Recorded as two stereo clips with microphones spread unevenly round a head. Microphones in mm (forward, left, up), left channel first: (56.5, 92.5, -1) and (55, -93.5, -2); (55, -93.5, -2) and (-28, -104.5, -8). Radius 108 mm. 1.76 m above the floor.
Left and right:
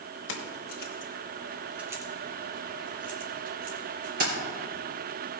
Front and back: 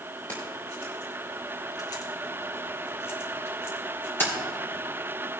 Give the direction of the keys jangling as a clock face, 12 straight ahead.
9 o'clock.